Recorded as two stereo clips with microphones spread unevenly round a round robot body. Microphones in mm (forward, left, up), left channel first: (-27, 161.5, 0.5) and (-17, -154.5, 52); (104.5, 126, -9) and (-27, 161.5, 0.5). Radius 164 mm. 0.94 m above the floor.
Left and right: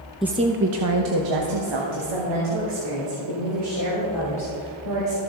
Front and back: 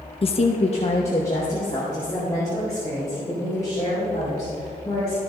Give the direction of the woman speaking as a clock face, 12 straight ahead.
12 o'clock.